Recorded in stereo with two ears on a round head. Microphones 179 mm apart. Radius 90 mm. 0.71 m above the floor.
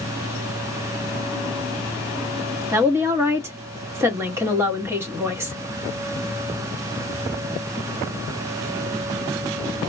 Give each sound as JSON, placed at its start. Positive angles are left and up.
{"t": 2.7, "sound": "a woman speaking", "side_deg": -15, "distance_m": 1.0}